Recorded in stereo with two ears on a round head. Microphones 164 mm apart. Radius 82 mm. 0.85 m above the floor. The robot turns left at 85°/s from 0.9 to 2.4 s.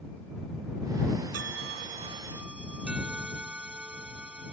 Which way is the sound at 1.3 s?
85° right.